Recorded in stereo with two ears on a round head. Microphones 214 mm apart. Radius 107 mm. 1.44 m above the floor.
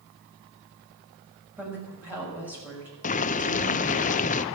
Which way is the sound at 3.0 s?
35° left (ahead or behind).